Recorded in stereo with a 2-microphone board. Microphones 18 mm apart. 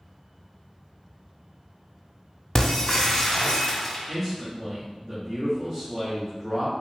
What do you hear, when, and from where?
2.5 s breaking glass: 25° left (ahead or behind), 1.0 m
4.1 s a man speaking: 10° right (ahead or behind), 1.1 m